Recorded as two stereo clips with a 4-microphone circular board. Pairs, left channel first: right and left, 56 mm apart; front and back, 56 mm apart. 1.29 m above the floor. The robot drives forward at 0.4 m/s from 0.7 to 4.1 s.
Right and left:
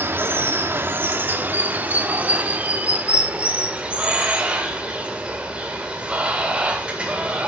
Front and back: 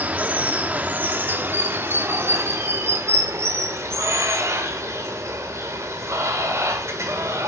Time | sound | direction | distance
0.0 | running water | 125° left | 1.1 m